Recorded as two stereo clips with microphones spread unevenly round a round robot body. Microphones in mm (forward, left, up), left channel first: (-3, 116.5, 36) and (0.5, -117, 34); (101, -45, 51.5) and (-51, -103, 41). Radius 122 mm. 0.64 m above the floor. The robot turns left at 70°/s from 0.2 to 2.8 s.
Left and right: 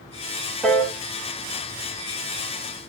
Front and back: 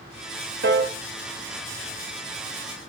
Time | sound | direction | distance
0.6 | a piano | straight behind | 0.6 m